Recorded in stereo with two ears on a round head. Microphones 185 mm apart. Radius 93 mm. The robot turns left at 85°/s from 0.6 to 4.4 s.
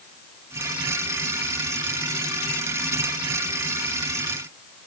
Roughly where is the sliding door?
No sliding door in this recording.